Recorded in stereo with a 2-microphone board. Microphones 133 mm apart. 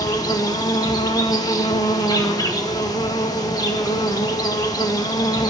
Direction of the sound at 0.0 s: 30° left (ahead or behind).